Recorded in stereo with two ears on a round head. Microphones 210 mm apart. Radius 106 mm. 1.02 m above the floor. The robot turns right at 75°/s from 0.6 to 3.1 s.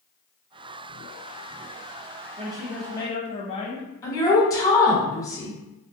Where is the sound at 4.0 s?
15° left (ahead or behind), 1.1 m.